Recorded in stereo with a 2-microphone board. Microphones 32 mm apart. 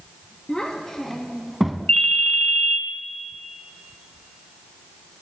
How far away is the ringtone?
About 1.3 m.